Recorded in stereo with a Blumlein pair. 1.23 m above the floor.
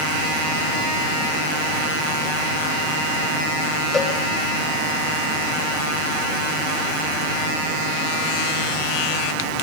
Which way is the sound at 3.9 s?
15° left.